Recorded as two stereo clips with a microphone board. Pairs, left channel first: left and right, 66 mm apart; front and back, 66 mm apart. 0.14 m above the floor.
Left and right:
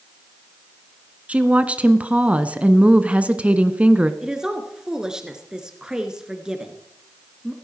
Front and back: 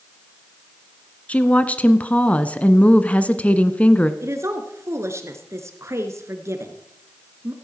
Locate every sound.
1.3 s a woman speaking: 45° right, 1.2 m
4.2 s a woman speaking: 165° right, 2 m